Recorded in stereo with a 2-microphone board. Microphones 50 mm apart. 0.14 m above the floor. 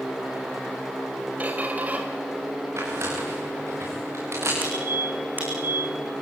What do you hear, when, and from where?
1.4 s a squeak: 30° right (ahead or behind), 3.5 m
2.8 s tearing paper: 60° right (ahead or behind), 9.5 m
4.6 s a squeak: 40° right (ahead or behind), 8.5 m